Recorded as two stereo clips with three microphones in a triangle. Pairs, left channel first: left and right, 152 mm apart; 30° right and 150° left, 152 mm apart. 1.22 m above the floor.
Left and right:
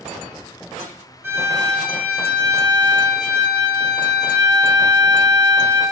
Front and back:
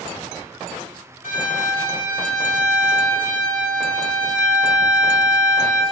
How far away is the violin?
About 0.7 m.